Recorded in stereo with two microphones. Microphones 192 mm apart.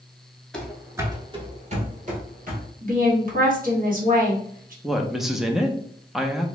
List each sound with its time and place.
0.5 s running footsteps: 5° left (ahead or behind), 0.9 m; by 2.7 s 50° right (ahead or behind), 1.6 m
2.8 s a woman speaking: 45° right (ahead or behind), 1.3 m
4.8 s a woman speaking: centre (ahead or behind), 0.5 m